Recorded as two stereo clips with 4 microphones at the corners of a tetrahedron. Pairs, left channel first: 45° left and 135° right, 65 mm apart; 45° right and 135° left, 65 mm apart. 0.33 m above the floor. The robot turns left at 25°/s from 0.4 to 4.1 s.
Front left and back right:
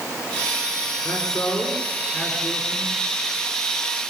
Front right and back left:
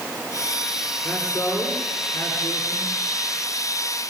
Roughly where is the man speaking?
Ahead left.